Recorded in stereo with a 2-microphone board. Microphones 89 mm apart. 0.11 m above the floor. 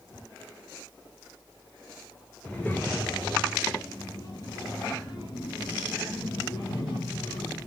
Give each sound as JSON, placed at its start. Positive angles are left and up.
{"t": 2.4, "sound": "a child speaking", "side_deg": 10, "distance_m": 1.4}